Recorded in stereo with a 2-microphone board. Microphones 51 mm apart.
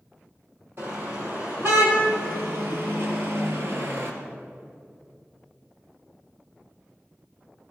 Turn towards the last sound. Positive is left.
turn(degrees=-55)  # may be behind; listen again after turning